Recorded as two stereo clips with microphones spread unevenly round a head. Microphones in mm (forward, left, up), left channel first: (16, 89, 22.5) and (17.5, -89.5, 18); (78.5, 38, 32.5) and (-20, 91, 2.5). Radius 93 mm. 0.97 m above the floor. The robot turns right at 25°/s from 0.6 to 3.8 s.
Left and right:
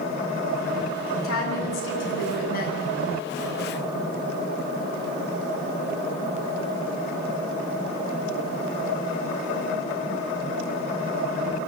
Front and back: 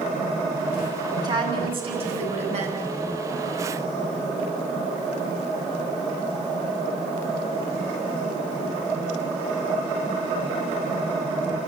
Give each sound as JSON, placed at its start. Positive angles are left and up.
{"t": 1.2, "sound": "a woman speaking", "azimuth_deg": 100, "distance_m": 7.5}